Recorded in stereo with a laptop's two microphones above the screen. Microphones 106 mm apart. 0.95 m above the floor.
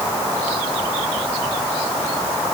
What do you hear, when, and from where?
Only background noise.